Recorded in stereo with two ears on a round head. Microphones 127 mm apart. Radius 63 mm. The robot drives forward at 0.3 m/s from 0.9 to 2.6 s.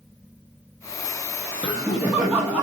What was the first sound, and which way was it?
Laughter, 10° right (ahead or behind).